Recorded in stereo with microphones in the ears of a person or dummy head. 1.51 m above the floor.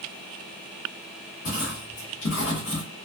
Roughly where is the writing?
Left.